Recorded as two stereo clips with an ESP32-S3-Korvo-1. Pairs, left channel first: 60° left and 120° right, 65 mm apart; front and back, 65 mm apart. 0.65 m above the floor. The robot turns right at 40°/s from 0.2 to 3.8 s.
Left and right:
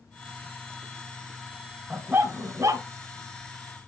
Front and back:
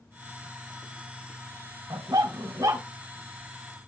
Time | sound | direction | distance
1.9 | a dog barking | 175° left | 2.0 m